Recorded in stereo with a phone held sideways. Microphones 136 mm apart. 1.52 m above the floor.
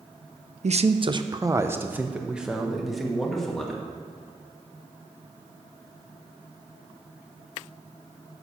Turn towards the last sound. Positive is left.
turn(degrees=5)  # may be behind; listen again after turning